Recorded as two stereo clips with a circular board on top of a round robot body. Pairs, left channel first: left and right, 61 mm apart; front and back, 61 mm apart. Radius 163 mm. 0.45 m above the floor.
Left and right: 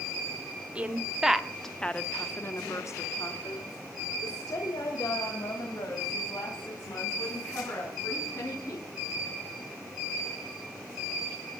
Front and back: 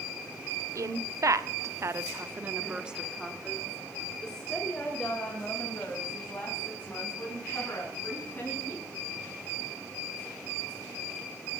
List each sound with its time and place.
0.8 s a woman speaking: 160° right, 1.8 m; by 8.9 s 65° left, 6.5 m